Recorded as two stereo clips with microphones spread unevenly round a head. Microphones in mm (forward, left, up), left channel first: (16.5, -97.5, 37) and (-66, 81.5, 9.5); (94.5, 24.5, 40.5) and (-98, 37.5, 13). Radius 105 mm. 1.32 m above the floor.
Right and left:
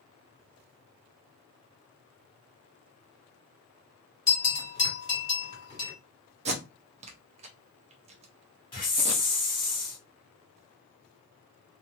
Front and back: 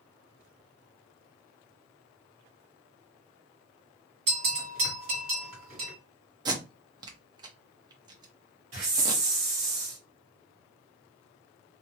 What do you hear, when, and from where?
4.3 s a bell: 135° right, 1.9 m
6.5 s tape being pulled: 115° left, 0.6 m
8.7 s a hiss: 120° right, 1.6 m